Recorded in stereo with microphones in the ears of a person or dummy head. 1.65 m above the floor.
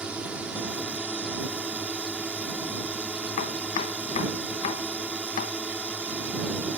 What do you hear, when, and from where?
0.0 s a drone: 10° right (ahead or behind)
3.4 s chopping: 45° left (ahead or behind)